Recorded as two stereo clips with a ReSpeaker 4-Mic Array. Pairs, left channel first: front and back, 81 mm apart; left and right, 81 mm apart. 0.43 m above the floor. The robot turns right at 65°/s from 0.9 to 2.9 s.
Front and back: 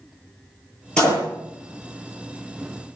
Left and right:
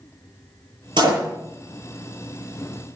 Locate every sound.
1.0 s a door slam: 80° right, 7 m; by 1.2 s 60° right, 7 m